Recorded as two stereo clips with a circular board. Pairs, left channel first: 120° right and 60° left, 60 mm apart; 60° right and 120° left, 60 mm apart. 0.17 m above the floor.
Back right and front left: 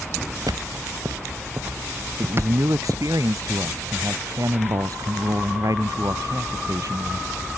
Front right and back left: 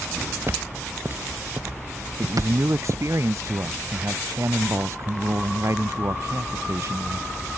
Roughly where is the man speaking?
Left.